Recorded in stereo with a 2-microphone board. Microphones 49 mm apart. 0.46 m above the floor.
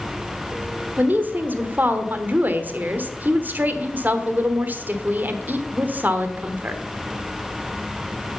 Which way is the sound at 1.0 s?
35° right (ahead or behind).